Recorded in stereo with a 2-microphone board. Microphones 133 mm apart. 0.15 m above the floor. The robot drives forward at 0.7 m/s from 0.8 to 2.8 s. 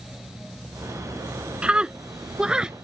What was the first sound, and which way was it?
A scream, 10° right (ahead or behind).